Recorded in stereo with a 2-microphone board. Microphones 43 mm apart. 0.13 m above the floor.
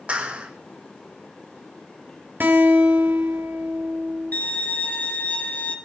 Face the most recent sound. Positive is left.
turn(degrees=35)  # may be behind; listen again after turning